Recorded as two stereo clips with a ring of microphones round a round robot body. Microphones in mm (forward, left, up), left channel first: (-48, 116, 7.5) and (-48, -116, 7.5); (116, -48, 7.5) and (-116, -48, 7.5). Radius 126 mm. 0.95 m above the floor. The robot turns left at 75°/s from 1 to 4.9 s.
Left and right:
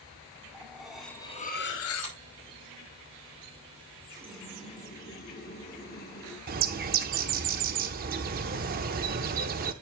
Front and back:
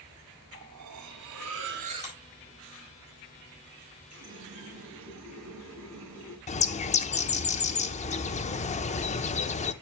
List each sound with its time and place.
0.5 s cutlery clinking: straight behind, 1.3 m; by 2.2 s 90° left, 1.3 m
2.0 s a clap: 55° right, 4 m; by 2.2 s 65° right, 4 m
4.1 s a running tap: 160° right, 3.5 m; by 6.4 s 140° left, 3.5 m
6.5 s a bird: 50° right, 0.7 m